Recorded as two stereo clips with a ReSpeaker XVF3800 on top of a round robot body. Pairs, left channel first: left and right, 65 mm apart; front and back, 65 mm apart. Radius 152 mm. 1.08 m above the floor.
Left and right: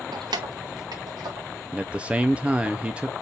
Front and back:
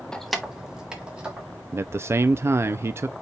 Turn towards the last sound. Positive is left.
turn(degrees=-155)